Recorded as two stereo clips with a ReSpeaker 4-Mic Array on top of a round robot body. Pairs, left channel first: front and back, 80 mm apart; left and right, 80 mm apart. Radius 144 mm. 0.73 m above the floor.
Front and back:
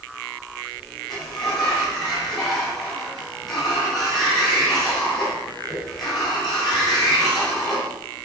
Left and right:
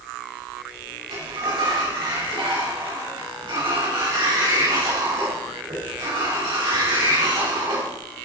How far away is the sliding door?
About 5 m.